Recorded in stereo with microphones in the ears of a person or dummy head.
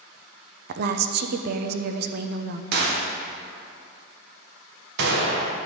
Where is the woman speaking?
55° right (ahead or behind), 0.7 m.